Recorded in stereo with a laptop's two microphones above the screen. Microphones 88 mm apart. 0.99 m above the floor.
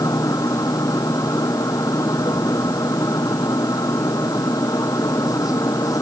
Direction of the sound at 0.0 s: 45° left (ahead or behind).